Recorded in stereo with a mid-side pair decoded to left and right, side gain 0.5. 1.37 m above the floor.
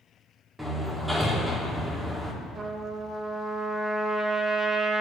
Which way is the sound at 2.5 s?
45° right.